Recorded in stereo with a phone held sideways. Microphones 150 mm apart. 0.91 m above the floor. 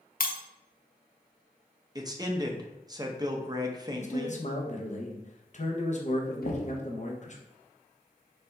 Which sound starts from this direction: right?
A man speaking, at 1.9 s.